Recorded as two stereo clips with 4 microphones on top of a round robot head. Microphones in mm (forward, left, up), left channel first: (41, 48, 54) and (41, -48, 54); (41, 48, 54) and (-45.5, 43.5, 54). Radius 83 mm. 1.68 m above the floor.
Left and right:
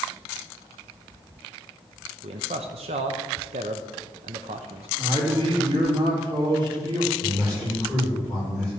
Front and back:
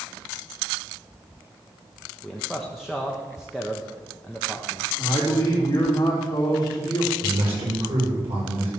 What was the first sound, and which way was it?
A man speaking, 90° right.